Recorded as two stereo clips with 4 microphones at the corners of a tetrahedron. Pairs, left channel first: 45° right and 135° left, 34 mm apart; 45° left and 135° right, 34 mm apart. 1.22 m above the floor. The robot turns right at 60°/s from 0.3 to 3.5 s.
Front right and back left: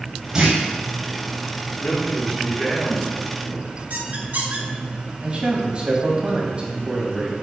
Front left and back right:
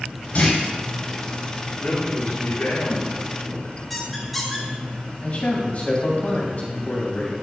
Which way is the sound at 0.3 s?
75° left.